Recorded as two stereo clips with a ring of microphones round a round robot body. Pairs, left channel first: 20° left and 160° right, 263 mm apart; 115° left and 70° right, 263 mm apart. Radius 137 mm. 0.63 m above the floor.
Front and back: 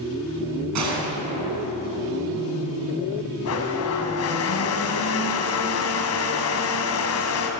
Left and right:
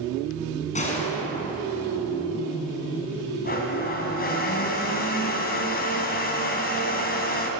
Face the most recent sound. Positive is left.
turn(degrees=55)